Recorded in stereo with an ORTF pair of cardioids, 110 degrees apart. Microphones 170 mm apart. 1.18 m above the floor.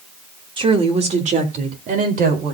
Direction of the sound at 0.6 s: 30° right.